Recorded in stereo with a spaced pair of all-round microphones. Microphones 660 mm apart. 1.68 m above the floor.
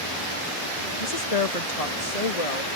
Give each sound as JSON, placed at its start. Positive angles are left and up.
{"t": 1.0, "sound": "a woman speaking", "side_deg": 65}